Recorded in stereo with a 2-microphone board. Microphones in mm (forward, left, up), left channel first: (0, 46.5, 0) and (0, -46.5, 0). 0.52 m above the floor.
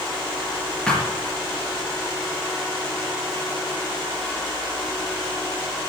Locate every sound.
0.9 s a thud: 10° left (ahead or behind), 4.5 m